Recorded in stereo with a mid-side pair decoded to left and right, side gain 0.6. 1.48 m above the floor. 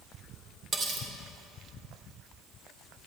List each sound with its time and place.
0.7 s cutlery clinking: 30° right, 2.5 m